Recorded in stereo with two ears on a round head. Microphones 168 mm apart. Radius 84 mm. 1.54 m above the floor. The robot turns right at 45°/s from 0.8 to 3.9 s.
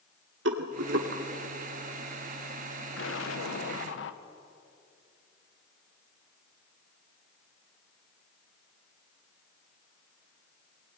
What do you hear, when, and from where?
0.5 s a rattle: 70° right (ahead or behind), 2.5 m; by 1.2 s 65° right (ahead or behind), 2.5 m
3.0 s an explosion: 70° left, 1.6 m; by 4.2 s 110° left, 1.6 m